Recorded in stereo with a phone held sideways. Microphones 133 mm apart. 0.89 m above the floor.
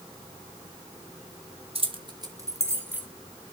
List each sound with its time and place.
1.8 s keys jangling: 45° right (ahead or behind), 1.5 m; by 3.1 s 10° right (ahead or behind), 2 m